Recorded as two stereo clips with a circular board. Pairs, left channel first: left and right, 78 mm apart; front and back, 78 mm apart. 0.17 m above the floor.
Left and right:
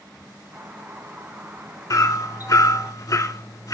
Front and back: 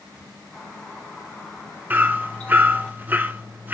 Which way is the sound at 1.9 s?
120° left.